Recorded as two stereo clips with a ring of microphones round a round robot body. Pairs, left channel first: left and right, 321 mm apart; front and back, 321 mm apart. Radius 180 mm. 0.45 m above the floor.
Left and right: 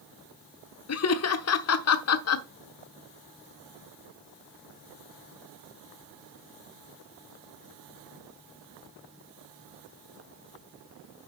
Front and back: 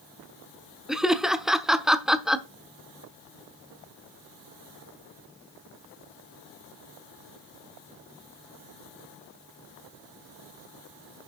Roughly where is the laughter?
Left.